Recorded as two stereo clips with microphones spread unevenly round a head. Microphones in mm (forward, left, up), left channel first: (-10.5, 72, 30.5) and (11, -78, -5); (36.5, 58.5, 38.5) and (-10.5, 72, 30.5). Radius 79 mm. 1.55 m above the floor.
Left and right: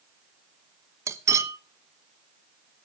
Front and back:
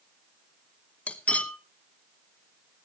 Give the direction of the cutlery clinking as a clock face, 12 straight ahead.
12 o'clock.